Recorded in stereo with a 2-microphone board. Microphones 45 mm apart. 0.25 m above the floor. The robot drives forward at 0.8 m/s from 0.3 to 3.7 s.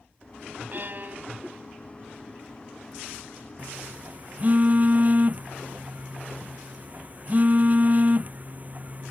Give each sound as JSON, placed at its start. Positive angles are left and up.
{"t": 0.7, "sound": "a violin", "side_deg": -50}
{"t": 3.6, "sound": "a phone buzzing", "side_deg": -35}